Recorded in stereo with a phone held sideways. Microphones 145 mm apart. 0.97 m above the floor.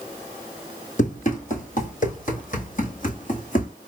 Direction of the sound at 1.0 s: 60° left (ahead or behind).